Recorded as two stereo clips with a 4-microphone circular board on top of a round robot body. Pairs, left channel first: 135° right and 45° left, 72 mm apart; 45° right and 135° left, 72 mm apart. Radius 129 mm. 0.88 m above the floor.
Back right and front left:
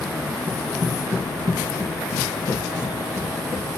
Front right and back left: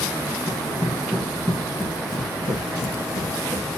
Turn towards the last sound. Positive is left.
turn(degrees=-5)